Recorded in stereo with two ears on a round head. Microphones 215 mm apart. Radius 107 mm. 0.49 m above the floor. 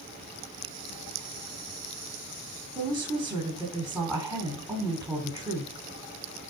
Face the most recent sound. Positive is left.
turn(degrees=-15)  # may be behind; listen again after turning